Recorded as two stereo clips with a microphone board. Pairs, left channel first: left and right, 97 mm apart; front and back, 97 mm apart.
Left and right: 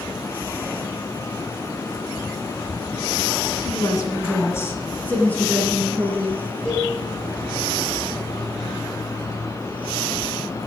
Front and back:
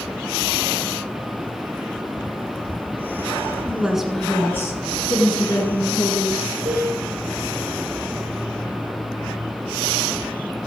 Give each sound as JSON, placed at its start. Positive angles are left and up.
{"t": 3.6, "sound": "a woman speaking", "azimuth_deg": 115, "distance_m": 2.0}
{"t": 6.7, "sound": "a cowbell", "azimuth_deg": 170, "distance_m": 5.0}